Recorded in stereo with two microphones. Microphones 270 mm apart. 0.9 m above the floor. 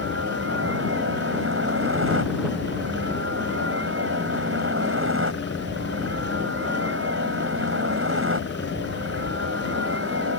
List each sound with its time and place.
0.0 s a helicopter: 50° right (ahead or behind)